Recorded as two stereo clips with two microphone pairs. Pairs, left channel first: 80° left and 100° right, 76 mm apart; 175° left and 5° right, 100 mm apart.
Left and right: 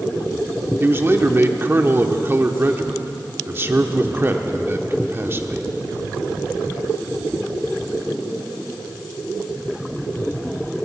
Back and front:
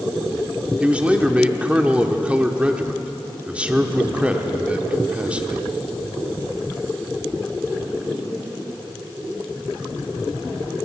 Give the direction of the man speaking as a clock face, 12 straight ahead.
2 o'clock.